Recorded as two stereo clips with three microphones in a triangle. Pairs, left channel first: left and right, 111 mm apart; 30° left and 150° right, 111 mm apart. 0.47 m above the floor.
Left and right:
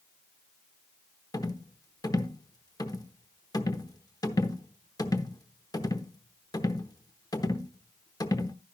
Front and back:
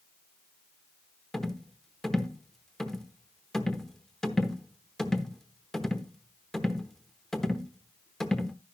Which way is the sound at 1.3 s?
115° left.